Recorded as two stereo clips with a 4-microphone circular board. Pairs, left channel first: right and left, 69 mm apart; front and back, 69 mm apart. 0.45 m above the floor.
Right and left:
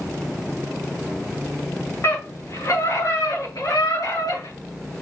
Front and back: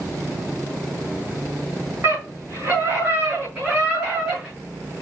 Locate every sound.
2.0 s a scream: 135° right, 4.5 m; by 4.5 s 105° right, 6 m